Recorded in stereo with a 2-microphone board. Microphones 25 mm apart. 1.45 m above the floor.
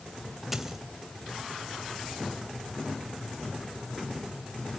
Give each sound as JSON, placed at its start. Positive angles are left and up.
{"t": 0.5, "sound": "a dropped coin", "side_deg": -15, "distance_m": 1.9}